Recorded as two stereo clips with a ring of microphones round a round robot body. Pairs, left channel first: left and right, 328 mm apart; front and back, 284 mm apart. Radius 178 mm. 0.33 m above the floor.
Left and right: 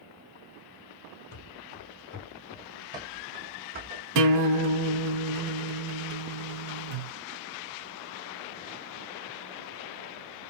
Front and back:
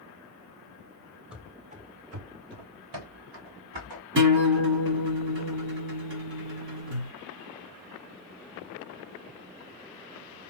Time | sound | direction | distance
1.3 | running footsteps | 95° left | 0.9 m
4.2 | a guitar | 125° right | 1.1 m